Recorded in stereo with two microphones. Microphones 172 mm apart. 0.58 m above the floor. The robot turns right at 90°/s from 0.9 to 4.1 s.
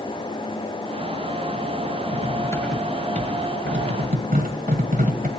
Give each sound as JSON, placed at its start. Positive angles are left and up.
{"t": 2.1, "sound": "cutlery clinking", "side_deg": 50, "distance_m": 1.6}